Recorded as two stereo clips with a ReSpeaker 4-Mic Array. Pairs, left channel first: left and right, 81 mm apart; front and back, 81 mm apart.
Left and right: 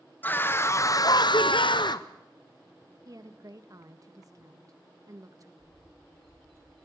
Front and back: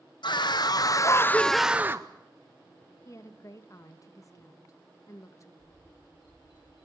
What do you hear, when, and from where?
0.2 s a scream: 20° left, 1.2 m; by 2.1 s 125° left, 0.7 m
3.0 s a woman speaking: 45° right, 1.6 m
5.6 s a bird: straight ahead, 6.5 m